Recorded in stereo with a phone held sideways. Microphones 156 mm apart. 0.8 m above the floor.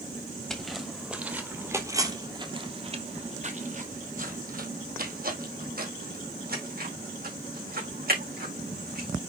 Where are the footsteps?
5° left (ahead or behind), 1.9 m; by 9.1 s 70° right (ahead or behind), 4 m.